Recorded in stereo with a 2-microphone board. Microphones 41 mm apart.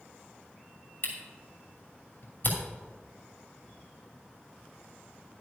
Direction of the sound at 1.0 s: 45° left (ahead or behind).